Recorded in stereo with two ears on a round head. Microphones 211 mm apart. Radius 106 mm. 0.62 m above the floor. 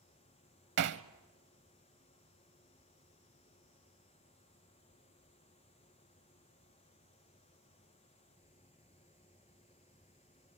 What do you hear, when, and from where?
0.8 s hammering: 50° right (ahead or behind), 0.9 m